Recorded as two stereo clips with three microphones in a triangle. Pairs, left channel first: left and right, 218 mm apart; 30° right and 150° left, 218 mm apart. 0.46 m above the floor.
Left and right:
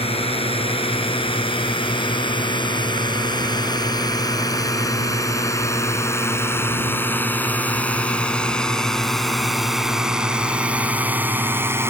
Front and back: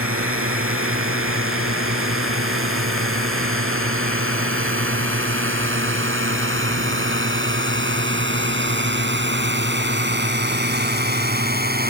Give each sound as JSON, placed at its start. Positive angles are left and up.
{"t": 0.0, "sound": "a drone", "azimuth_deg": 155}